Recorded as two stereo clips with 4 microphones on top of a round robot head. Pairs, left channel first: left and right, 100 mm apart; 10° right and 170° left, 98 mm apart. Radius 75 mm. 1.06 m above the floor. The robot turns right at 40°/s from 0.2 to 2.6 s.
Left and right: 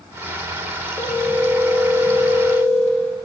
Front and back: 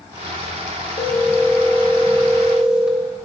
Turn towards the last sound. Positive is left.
turn(degrees=90)